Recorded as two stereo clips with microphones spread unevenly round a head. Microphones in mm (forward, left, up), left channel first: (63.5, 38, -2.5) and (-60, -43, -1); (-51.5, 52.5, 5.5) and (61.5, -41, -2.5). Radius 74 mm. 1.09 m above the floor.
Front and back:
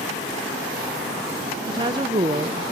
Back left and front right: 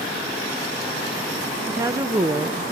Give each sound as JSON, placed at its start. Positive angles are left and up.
{"t": 1.7, "sound": "a woman speaking", "azimuth_deg": -95, "distance_m": 0.5}